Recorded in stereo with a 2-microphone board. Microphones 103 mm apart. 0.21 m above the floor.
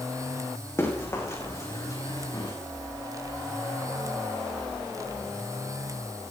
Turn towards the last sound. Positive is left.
turn(degrees=40)  # may be behind; listen again after turning